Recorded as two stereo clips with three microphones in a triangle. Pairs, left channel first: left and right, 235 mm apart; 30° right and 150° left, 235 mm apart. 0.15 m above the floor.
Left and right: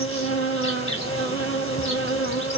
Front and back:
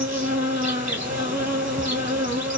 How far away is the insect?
About 1.2 m.